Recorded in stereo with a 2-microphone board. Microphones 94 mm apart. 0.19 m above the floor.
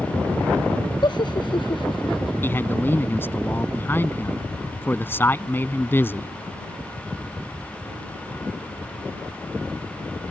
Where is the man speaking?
25° left (ahead or behind).